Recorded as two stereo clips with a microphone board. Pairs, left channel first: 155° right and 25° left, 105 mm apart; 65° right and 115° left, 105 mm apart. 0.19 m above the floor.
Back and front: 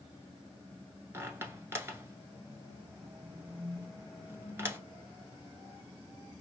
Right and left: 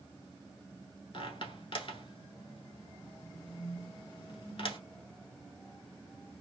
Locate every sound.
1.1 s a squeak: 45° right, 1.0 m